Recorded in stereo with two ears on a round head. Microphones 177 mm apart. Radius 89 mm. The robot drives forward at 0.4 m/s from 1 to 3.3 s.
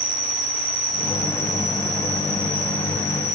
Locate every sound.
0.0 s an insect: 45° right (ahead or behind), 1.1 m; by 3.4 s 25° right (ahead or behind), 1.7 m